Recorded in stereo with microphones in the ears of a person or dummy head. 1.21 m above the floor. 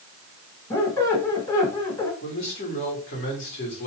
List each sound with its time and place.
0.7 s a squeak: 10° left (ahead or behind), 1.2 m
2.2 s a man speaking: 45° left (ahead or behind), 2 m